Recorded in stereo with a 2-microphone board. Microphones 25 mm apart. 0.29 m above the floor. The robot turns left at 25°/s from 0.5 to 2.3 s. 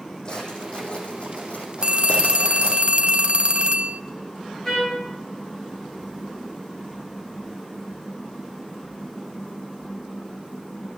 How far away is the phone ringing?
About 0.8 m.